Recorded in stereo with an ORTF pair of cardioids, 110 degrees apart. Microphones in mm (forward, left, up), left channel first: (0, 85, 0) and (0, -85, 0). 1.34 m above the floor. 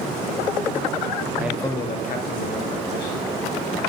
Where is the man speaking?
10° right, 0.5 m; by 3.3 s 80° left, 1.8 m.